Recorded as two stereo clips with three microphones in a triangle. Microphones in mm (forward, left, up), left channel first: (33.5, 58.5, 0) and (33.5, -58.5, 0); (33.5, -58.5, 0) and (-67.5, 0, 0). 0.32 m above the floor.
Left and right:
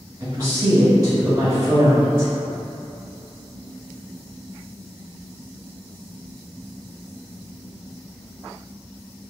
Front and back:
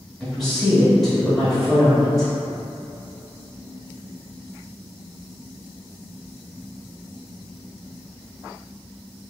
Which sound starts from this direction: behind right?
A woman speaking, at 0.2 s.